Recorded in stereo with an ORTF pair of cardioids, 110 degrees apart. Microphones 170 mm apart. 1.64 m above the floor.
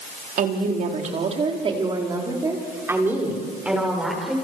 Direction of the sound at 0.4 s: 55° right.